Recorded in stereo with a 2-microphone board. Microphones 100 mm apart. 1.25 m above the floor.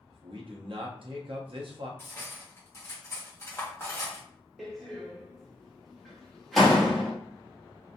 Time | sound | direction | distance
0.1 | a man speaking | 60° right (ahead or behind) | 0.5 m
2.0 | cutlery clinking | 25° left (ahead or behind) | 1.0 m
4.6 | a door slam | centre (ahead or behind) | 1.0 m